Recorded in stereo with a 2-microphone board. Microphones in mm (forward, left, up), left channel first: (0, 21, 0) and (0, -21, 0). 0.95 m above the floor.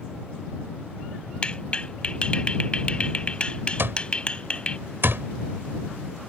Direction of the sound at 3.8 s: 65° right (ahead or behind).